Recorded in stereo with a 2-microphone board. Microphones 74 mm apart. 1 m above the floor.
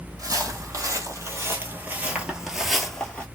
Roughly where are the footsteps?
Right.